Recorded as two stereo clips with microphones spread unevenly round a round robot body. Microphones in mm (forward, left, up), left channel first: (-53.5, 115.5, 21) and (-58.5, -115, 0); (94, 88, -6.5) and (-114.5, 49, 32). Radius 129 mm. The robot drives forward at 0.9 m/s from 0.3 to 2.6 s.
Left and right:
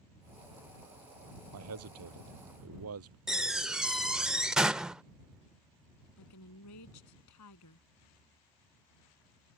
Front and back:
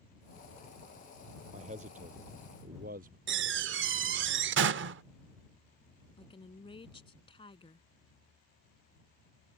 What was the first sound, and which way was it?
A man speaking, 105° right.